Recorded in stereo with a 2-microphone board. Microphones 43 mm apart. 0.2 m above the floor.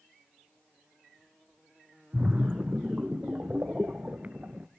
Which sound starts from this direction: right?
A splash, at 2.1 s.